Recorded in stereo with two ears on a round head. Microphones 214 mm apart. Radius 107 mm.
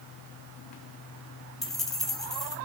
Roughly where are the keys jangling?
Centre.